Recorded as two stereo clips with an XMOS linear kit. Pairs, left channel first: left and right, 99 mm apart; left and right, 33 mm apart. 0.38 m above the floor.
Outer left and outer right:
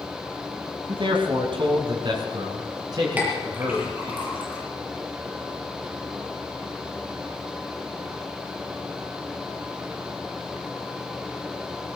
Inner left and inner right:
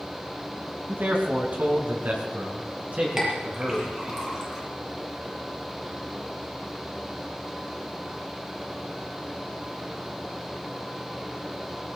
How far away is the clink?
About 6.5 m.